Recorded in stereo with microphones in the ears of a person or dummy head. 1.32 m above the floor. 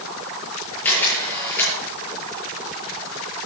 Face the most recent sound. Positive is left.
turn(degrees=10)  # may be behind; listen again after turning